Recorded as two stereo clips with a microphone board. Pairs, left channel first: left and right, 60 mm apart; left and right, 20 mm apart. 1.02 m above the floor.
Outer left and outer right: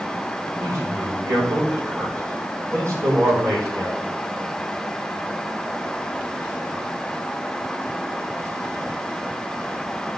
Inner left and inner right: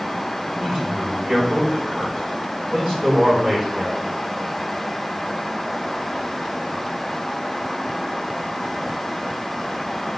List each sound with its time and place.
0.6 s a man speaking: 55° right (ahead or behind), 5 m